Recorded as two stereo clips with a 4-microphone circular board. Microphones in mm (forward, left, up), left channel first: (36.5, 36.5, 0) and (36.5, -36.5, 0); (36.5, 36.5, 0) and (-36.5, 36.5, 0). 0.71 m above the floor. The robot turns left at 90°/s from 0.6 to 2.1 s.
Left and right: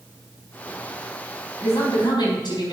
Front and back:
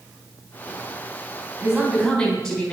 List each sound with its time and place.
1.6 s a woman speaking: 130° left, 4 m; by 2.7 s 85° left, 4 m